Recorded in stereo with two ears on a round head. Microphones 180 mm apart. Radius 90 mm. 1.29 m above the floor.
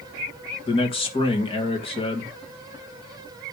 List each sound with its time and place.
0.7 s a man speaking: 30° left (ahead or behind), 2.0 m